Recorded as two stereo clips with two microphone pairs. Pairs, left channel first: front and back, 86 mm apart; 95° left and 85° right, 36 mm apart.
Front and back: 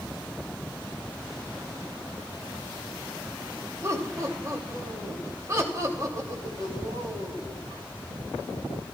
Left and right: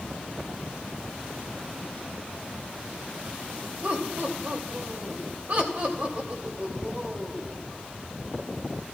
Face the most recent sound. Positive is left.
turn(degrees=-125)